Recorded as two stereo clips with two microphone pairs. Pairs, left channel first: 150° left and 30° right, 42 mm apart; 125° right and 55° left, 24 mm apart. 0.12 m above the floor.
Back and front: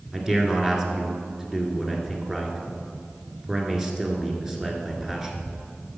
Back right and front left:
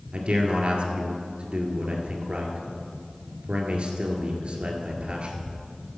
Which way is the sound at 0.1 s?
45° left.